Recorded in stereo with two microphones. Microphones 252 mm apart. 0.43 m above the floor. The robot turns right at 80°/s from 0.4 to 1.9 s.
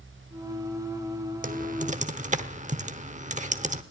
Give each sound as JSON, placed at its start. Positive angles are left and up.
{"t": 1.4, "sound": "typing on a keyboard", "side_deg": -30, "distance_m": 1.0}